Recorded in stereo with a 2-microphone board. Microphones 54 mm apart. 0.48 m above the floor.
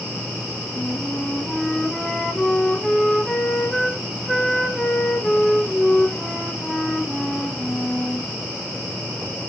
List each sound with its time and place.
0.8 s a flute: 5° left (ahead or behind), 3.5 m